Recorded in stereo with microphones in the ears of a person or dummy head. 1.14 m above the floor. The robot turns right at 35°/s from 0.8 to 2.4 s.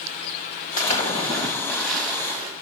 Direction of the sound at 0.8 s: 140° left.